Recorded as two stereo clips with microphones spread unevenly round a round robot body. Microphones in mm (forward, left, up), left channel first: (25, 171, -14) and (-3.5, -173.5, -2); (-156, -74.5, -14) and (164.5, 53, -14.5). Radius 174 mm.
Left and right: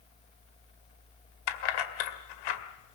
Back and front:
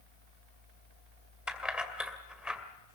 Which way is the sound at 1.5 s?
110° left.